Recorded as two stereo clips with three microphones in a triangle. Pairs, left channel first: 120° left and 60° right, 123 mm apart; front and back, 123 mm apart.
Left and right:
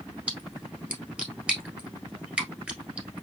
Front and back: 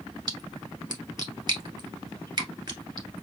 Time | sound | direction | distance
0.3 | a splash | 135° right | 1.3 m